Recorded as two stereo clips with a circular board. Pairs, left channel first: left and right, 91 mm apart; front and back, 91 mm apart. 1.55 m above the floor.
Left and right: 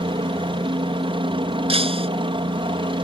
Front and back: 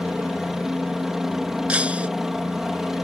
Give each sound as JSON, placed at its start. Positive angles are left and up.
{"t": 0.0, "sound": "a helicopter", "azimuth_deg": -95}
{"t": 1.7, "sound": "breaking glass", "azimuth_deg": -100}